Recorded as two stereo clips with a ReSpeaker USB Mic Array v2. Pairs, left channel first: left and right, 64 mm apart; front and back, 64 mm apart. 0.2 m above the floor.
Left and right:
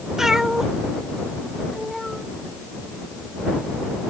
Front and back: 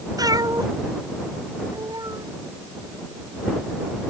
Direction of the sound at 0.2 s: 170° right.